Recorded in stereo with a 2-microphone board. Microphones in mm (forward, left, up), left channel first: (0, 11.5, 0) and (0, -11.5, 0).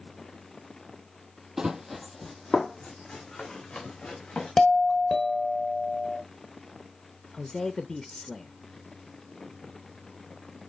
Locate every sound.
1.6 s running footsteps: 30° right (ahead or behind), 1.1 m; by 4.5 s 45° left (ahead or behind), 3.5 m
4.6 s a doorbell: 20° left (ahead or behind), 1.5 m
7.3 s a man speaking: 20° left (ahead or behind), 0.6 m